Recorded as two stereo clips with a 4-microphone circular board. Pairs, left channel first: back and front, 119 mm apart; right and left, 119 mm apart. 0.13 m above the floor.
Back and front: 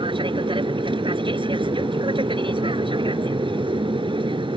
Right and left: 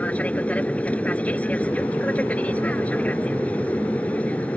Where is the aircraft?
15° right.